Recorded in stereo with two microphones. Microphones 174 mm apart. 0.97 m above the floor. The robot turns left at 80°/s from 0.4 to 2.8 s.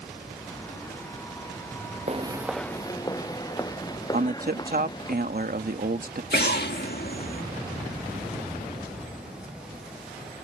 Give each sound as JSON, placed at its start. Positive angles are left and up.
{"t": 2.1, "sound": "footsteps", "side_deg": -40}
{"t": 4.1, "sound": "a man speaking", "side_deg": -60}
{"t": 6.3, "sound": "an explosion", "side_deg": 65}